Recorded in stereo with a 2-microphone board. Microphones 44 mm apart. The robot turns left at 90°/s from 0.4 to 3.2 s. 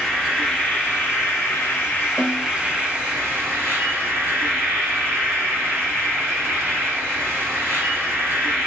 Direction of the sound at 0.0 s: 175° right.